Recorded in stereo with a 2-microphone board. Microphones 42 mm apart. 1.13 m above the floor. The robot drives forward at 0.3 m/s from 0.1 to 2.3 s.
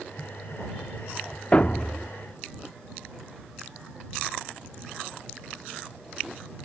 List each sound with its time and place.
1.5 s a thud: 30° left (ahead or behind)